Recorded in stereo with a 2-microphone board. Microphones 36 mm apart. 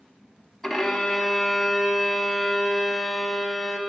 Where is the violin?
5° left (ahead or behind), 0.6 m.